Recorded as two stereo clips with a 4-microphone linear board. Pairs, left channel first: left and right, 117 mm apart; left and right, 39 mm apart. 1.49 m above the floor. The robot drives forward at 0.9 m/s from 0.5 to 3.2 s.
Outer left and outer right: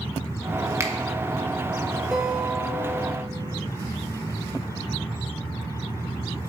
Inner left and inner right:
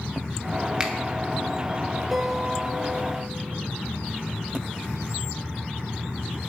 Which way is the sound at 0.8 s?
25° right (ahead or behind).